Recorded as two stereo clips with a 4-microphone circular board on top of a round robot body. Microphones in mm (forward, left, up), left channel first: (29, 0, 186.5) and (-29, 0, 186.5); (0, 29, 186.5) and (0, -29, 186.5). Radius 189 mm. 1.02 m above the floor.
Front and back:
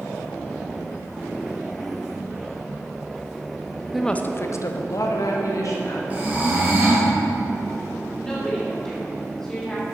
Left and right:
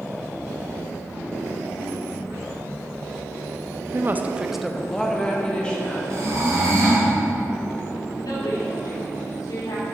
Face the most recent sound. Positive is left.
turn(degrees=80)